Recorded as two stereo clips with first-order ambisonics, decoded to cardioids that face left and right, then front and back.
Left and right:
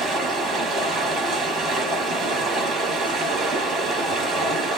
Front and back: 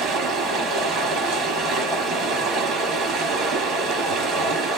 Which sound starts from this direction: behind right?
Running water, at 0.0 s.